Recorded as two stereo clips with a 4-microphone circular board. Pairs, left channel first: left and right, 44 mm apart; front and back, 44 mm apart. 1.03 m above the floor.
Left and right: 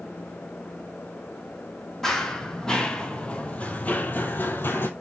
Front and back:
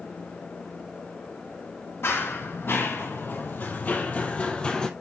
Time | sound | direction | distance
2.0 | running footsteps | 10° left | 2.5 m